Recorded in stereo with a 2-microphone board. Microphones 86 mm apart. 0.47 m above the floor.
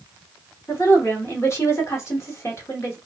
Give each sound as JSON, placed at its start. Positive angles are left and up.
{"t": 0.7, "sound": "a woman speaking", "side_deg": 30, "distance_m": 1.0}